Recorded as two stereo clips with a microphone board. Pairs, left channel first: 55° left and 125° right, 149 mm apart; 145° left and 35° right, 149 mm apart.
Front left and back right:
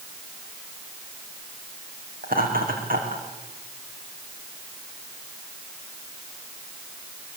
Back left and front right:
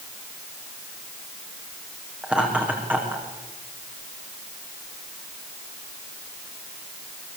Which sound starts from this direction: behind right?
Laughter, at 2.2 s.